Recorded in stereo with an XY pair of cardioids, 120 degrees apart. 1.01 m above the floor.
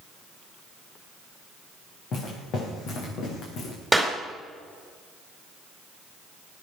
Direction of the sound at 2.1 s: 60° left.